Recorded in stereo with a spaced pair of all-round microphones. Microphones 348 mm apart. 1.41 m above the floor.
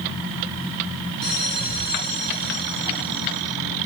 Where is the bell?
75° right (ahead or behind), 7 m.